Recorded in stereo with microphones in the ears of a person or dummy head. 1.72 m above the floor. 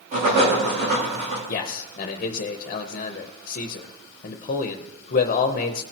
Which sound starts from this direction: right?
Writing, at 0.1 s.